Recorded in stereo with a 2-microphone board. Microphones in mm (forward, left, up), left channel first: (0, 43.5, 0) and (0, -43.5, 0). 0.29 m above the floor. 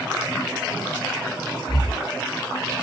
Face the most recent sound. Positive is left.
turn(degrees=55)  # may be behind; listen again after turning